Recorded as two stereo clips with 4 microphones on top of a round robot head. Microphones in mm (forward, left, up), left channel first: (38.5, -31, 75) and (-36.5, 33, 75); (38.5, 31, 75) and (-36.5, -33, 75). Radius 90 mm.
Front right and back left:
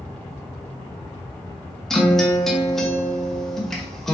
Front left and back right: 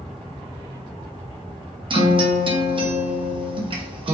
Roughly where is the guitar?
Behind right.